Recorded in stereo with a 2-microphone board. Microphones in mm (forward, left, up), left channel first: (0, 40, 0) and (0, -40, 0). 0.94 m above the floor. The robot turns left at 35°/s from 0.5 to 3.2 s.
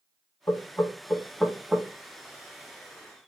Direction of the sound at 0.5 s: 30° left (ahead or behind).